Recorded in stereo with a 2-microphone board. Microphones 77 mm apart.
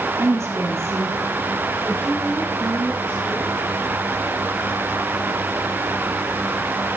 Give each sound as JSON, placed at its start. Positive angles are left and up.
{"t": 0.2, "sound": "a woman speaking", "side_deg": -40, "distance_m": 3.5}